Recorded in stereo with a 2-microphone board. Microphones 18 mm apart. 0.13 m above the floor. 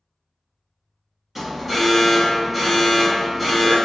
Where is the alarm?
5° right (ahead or behind), 1.5 m.